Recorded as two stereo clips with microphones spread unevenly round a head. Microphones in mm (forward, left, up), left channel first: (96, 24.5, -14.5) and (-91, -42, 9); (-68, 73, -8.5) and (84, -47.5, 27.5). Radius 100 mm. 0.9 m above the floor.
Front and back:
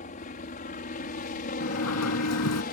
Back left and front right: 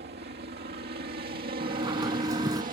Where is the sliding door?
30° left.